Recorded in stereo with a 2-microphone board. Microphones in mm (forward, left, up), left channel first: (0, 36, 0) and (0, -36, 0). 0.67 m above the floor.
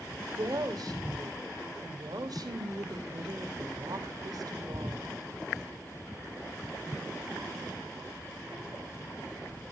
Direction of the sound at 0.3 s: 60° right (ahead or behind).